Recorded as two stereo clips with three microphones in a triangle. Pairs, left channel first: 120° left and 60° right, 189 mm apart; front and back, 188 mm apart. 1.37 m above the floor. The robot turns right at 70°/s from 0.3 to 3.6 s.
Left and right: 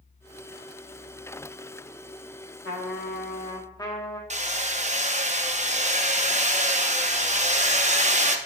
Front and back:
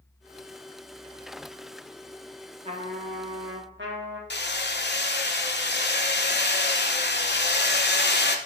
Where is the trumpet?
120° left, 1.3 m; by 4.2 s 170° right, 1.3 m.